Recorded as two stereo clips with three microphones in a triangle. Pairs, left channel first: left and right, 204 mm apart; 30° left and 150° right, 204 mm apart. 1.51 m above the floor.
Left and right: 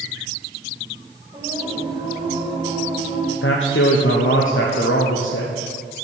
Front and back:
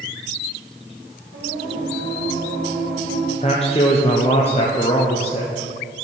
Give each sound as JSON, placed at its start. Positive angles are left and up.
{"t": 1.3, "sound": "singing", "azimuth_deg": -155, "distance_m": 2.5}
{"t": 3.4, "sound": "a man speaking", "azimuth_deg": 85, "distance_m": 0.7}